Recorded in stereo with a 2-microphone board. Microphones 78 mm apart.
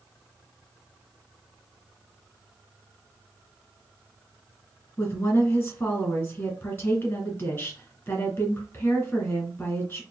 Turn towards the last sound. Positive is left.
turn(degrees=25)  # may be behind; listen again after turning